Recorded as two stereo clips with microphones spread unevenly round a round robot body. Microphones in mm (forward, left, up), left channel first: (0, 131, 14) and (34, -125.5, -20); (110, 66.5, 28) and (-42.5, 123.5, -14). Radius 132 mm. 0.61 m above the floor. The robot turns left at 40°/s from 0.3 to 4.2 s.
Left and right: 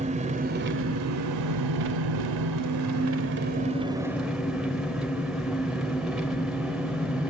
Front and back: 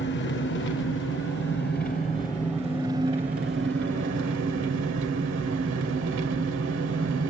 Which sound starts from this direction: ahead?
An engine running, at 0.0 s.